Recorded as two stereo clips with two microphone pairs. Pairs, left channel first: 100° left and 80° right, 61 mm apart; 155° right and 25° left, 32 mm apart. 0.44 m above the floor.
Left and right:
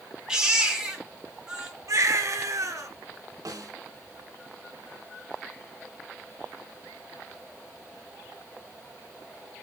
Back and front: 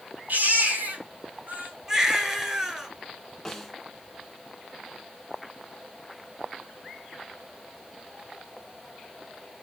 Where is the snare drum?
75° right, 1.8 m.